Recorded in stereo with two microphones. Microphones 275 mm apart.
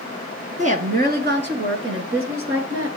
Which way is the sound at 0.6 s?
25° right (ahead or behind).